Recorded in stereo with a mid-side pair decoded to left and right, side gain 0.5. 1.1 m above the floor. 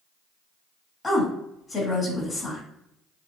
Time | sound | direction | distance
1.0 | a woman speaking | 25° left | 1.8 m